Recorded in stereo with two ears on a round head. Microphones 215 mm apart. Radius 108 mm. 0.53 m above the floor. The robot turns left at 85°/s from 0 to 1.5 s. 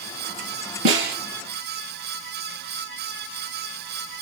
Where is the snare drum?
60° right (ahead or behind), 3.5 m; by 1.2 s 35° right (ahead or behind), 3.5 m.